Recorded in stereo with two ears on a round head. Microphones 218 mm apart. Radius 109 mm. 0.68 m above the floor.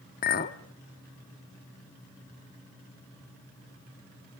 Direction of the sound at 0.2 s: 35° left (ahead or behind).